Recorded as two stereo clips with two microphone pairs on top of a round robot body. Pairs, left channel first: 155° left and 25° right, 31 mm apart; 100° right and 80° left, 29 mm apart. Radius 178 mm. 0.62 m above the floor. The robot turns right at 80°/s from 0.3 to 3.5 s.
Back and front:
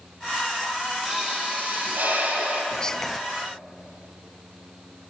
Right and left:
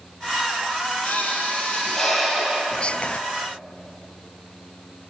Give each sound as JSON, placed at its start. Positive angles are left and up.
{"t": 1.1, "sound": "a pop", "azimuth_deg": -105, "distance_m": 9.5}
{"t": 2.7, "sound": "whispering", "azimuth_deg": -145, "distance_m": 0.8}